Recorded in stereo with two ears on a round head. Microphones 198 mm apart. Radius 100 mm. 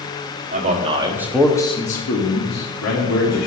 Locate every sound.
0.5 s a man speaking: 35° right (ahead or behind), 1.6 m; by 3.5 s 80° left, 2.5 m